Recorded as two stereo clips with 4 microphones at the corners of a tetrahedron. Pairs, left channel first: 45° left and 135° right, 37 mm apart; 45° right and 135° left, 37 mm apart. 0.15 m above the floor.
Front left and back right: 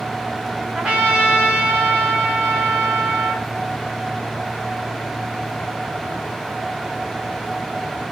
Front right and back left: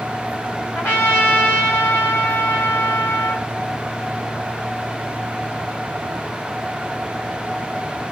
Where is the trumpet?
60° right, 3 m.